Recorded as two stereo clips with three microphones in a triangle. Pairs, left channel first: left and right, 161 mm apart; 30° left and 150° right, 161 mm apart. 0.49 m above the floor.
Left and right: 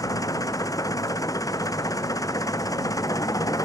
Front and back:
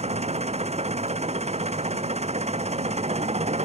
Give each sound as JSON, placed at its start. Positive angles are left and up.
{"t": 0.0, "sound": "an engine running", "azimuth_deg": 160}